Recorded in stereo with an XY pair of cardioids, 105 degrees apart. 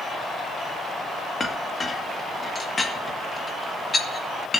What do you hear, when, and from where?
1.4 s a clink: 25° left, 1.8 m